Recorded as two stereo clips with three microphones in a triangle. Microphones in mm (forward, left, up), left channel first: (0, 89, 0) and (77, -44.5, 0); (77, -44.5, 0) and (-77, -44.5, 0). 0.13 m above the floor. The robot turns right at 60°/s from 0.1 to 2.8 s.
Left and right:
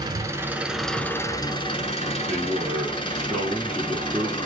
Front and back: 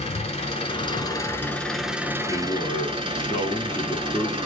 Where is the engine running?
10° right, 0.8 m; by 4.5 s 150° left, 0.8 m.